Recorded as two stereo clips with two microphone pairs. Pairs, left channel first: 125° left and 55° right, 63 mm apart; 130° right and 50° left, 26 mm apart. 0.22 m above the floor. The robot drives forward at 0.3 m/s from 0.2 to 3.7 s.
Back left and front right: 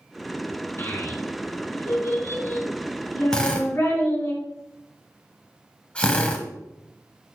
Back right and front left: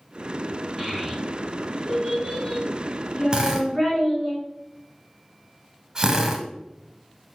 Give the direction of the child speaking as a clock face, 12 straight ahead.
8 o'clock.